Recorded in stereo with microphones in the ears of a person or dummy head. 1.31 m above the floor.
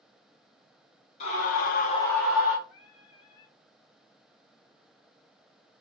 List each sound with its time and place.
1.2 s a scream: 45° left (ahead or behind), 1.1 m; by 2.6 s 10° right (ahead or behind), 1.1 m
2.7 s singing: 35° left (ahead or behind), 0.8 m